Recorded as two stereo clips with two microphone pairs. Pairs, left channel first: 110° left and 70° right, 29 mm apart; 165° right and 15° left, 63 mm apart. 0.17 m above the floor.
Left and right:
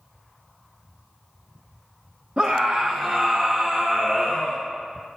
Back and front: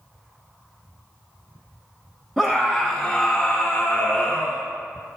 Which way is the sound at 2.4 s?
75° right.